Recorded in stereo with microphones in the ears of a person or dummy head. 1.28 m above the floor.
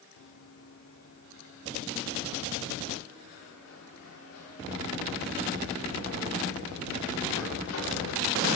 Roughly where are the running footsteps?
Left.